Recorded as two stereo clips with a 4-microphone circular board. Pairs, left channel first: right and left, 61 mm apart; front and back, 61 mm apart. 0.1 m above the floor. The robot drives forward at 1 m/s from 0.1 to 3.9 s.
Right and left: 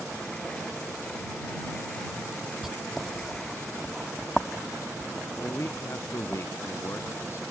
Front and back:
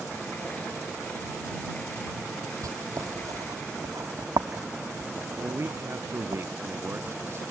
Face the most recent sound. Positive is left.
turn(degrees=-135)